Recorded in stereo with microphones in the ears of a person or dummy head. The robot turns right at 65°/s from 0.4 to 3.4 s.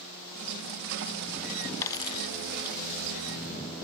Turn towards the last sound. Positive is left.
turn(degrees=125)